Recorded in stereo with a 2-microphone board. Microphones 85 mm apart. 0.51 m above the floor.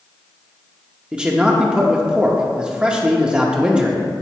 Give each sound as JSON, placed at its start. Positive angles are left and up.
{"t": 1.1, "sound": "a man speaking", "side_deg": -10, "distance_m": 0.7}